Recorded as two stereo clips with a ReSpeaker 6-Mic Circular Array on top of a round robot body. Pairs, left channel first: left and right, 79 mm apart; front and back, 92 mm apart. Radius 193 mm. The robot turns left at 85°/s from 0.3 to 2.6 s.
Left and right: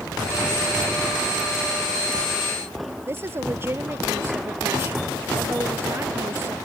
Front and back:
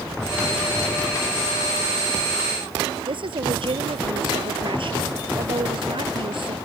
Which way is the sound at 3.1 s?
150° right.